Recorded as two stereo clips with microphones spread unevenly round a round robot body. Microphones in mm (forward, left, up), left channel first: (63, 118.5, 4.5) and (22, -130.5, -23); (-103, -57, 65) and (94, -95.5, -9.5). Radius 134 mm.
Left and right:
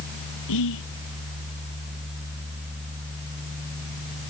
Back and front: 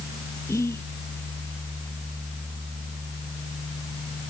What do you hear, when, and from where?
0.5 s whispering: 90° left